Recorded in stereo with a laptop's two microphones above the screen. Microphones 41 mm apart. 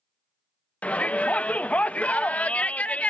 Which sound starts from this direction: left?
A shout, at 0.8 s.